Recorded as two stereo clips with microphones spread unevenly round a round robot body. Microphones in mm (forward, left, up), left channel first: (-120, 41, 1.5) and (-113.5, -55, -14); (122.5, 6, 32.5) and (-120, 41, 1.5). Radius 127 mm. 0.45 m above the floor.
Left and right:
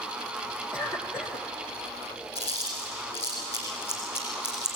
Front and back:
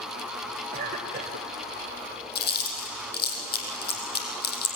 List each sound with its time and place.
0.7 s a cough: 130° left, 2 m
2.4 s chewing: 45° left, 4 m